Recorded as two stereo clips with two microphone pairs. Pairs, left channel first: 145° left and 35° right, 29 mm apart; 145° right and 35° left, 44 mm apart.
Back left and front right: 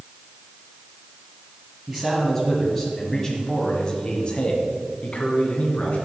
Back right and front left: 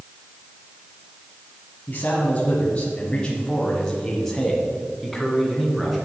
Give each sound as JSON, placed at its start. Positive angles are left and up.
{"t": 1.9, "sound": "a man speaking", "azimuth_deg": -115, "distance_m": 1.8}